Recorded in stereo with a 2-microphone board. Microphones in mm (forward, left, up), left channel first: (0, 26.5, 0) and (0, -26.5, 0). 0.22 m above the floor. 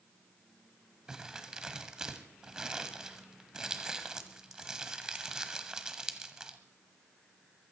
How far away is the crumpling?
About 1.1 m.